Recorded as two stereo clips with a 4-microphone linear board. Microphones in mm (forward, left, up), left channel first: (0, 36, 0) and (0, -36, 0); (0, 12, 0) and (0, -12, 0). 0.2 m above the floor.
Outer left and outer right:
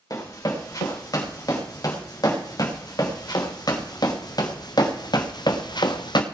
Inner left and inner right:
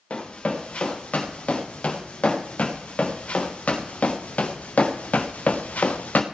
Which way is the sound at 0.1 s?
50° left (ahead or behind).